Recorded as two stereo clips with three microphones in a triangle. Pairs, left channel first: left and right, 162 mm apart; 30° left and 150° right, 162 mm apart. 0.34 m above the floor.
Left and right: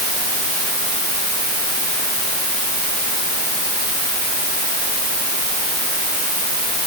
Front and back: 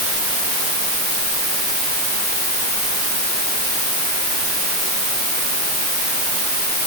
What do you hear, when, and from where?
Only background noise.